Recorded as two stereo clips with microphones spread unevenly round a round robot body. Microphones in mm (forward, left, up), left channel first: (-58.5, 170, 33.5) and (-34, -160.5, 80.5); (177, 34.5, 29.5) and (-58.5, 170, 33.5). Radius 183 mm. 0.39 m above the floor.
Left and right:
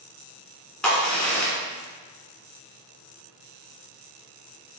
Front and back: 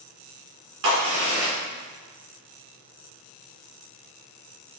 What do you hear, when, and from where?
0.8 s a crack: straight behind, 2.5 m